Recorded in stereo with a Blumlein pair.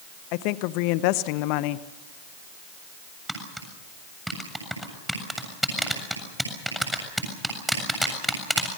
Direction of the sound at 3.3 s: 5° right.